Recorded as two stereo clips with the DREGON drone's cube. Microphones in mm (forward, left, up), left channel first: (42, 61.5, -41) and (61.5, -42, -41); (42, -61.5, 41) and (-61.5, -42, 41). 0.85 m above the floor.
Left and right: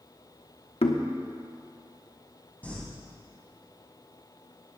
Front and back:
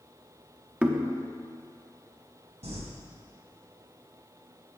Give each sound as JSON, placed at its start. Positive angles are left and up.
{"t": 0.8, "sound": "knocking", "azimuth_deg": 90, "distance_m": 1.1}
{"t": 2.6, "sound": "crumpling", "azimuth_deg": 175, "distance_m": 3.5}